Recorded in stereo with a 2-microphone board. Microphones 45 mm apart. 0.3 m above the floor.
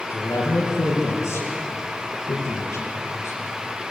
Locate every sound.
0.1 s a man speaking: 80° left, 5.5 m